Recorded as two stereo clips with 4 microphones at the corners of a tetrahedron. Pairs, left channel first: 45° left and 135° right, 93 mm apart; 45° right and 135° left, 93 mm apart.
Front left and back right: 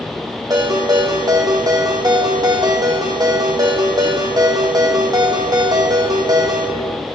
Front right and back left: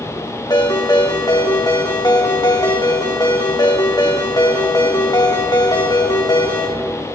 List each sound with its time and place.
0.5 s a ringtone: 90° right, 3.5 m